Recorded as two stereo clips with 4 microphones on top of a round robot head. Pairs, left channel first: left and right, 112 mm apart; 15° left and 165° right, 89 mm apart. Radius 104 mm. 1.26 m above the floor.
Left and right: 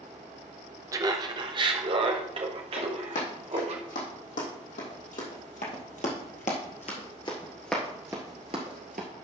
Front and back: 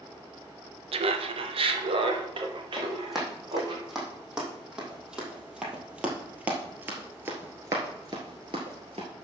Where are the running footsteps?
105° left, 4.5 m; by 9.1 s 110° right, 1.6 m.